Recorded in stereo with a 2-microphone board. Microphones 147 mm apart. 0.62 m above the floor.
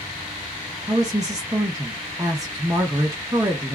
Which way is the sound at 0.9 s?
25° right (ahead or behind).